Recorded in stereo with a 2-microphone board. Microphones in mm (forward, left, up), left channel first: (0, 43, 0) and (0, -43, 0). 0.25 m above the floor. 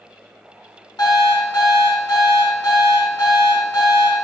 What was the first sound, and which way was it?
An alarm clock, 55° left (ahead or behind).